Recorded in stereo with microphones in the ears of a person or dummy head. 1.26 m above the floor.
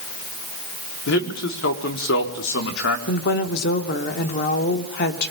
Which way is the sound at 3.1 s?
55° left (ahead or behind).